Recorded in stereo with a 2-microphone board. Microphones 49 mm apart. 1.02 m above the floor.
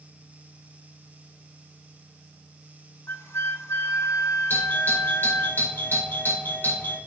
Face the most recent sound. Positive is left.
turn(degrees=50)  # may be behind; listen again after turning